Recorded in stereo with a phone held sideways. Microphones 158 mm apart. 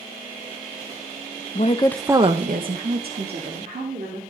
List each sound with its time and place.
1.6 s a woman speaking: 50° left (ahead or behind), 0.7 m; by 4.2 s 85° right, 3 m